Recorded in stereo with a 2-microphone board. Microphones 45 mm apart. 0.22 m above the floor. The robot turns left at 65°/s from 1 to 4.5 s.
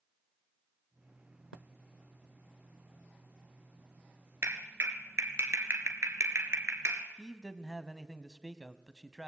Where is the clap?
65° right (ahead or behind), 2.5 m; by 7.0 s 70° right (ahead or behind), 2.5 m.